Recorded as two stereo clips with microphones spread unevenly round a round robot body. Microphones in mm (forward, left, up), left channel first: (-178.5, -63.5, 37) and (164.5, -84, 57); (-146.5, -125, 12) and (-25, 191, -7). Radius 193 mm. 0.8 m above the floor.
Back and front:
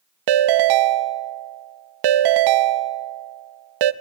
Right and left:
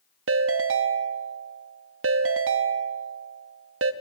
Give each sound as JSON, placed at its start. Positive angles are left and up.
{"t": 0.3, "sound": "a ringtone", "azimuth_deg": 15, "distance_m": 0.5}